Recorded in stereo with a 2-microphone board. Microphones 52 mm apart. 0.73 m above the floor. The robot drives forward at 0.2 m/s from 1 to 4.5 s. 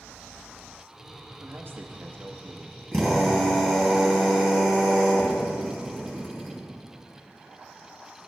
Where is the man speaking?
45° right (ahead or behind), 0.8 m; by 2.8 s 40° right (ahead or behind), 0.9 m.